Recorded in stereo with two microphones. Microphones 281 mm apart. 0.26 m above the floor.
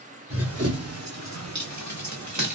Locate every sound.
0.3 s running footsteps: 50° right (ahead or behind), 1.3 m; by 2.6 s 75° right (ahead or behind), 1.5 m